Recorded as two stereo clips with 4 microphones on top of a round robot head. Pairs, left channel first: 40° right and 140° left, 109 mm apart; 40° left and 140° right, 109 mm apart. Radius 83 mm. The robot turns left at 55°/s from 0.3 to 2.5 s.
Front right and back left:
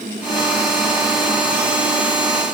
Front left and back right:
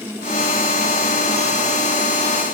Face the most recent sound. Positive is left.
No sound to turn to.